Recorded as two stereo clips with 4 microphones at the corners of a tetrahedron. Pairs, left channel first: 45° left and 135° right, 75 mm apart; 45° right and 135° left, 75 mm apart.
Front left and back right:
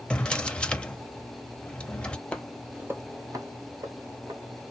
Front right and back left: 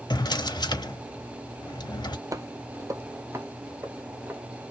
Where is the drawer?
30° right, 0.7 m.